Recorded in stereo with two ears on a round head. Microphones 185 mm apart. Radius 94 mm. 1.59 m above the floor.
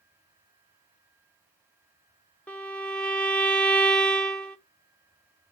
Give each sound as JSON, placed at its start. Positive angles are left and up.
{"t": 2.5, "sound": "a violin", "side_deg": 5, "distance_m": 0.8}